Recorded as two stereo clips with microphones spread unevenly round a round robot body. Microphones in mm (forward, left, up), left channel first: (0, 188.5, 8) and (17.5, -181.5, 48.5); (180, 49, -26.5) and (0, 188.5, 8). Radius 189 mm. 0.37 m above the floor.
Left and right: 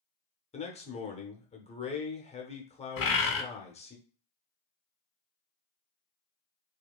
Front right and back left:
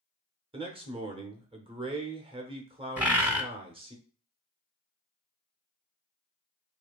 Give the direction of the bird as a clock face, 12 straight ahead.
10 o'clock.